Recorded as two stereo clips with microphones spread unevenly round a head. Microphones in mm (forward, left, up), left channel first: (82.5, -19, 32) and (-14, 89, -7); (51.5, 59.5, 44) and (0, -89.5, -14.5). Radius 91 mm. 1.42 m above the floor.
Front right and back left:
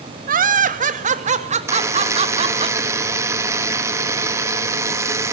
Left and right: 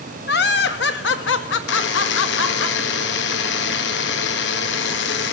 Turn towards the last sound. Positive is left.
turn(degrees=60)